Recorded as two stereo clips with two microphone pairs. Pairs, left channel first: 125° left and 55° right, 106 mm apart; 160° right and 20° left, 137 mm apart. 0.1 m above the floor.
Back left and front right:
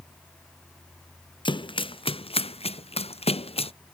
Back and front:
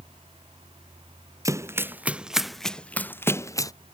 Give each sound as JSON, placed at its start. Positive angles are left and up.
{"t": 1.4, "sound": "running footsteps", "azimuth_deg": 85}